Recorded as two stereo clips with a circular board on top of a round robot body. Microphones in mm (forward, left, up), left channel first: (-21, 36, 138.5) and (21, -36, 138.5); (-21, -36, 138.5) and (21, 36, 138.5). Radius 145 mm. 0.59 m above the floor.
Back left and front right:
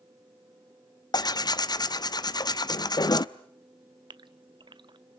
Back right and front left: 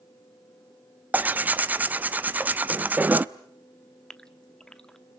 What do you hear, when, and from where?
1.1 s tearing paper: 125° left, 1.0 m
4.1 s a gasp: 40° right, 0.9 m